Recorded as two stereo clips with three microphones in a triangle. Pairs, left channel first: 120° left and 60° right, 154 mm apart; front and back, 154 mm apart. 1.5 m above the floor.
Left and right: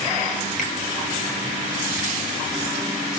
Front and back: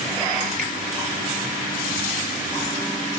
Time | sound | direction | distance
0.6 | a finger snap | 155° left | 1.9 m